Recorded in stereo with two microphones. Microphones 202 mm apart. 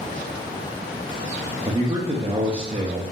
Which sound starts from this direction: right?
A man speaking, at 1.6 s.